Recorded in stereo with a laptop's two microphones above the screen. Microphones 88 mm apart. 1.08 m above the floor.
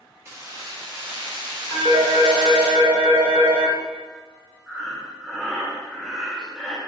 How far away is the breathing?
About 0.6 m.